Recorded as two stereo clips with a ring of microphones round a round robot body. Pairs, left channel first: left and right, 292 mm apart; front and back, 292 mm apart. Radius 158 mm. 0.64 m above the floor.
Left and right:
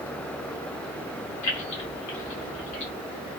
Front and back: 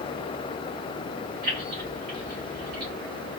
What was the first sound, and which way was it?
Keys jangling, 115° left.